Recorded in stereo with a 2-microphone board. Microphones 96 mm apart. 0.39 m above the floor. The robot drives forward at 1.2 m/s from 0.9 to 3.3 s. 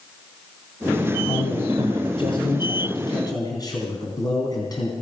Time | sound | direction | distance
1.2 | a man speaking | 60° left (ahead or behind) | 2 m